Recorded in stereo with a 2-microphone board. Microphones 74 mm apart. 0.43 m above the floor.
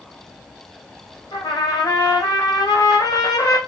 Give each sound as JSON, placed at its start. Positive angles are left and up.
{"t": 1.3, "sound": "a trumpet", "side_deg": 60, "distance_m": 1.6}